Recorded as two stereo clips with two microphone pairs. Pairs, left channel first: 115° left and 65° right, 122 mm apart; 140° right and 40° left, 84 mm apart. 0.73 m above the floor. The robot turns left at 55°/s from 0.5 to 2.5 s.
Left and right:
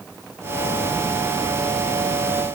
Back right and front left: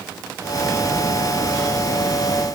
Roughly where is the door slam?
No door slam in this recording.